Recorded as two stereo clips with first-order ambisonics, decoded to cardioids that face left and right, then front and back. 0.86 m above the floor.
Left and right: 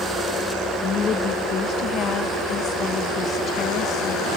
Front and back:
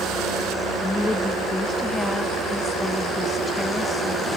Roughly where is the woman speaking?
Left.